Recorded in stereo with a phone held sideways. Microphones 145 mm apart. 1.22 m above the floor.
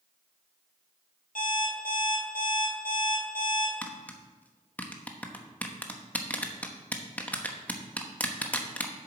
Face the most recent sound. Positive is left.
turn(degrees=10)  # may be behind; listen again after turning